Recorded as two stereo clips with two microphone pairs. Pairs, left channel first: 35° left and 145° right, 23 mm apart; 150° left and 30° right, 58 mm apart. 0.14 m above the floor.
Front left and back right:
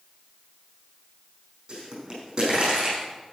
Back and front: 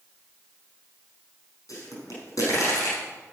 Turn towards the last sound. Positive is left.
turn(degrees=165)